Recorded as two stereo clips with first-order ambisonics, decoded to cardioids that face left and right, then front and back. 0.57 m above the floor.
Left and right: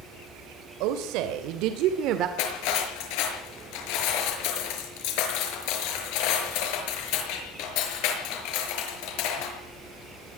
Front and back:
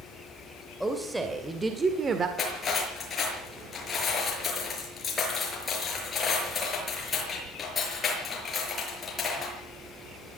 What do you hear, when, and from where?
0.8 s a woman speaking: 95° right, 3 m; by 2.3 s 120° right, 1.8 m
2.4 s cutlery clinking: 70° left, 6 m